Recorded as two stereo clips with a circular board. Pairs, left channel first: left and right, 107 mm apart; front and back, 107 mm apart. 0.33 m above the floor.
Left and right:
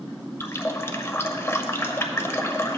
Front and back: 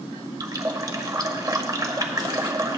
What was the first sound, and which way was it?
A running tap, 140° left.